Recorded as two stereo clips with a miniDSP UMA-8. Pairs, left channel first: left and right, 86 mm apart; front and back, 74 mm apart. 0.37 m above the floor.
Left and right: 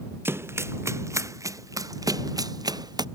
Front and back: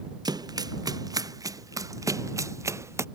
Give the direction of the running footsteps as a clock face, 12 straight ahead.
5 o'clock.